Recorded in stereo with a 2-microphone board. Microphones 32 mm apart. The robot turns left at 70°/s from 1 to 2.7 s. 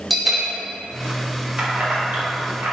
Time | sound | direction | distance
0.1 | a bell | centre (ahead or behind) | 0.7 m
1.6 | keys jangling | 30° right (ahead or behind) | 0.9 m